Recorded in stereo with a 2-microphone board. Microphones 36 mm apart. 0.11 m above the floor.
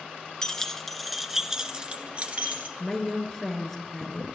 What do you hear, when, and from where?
0.4 s keys jangling: 20° left (ahead or behind), 1.0 m; by 2.7 s 45° right (ahead or behind), 1.2 m
2.8 s a woman speaking: 10° left (ahead or behind), 1.6 m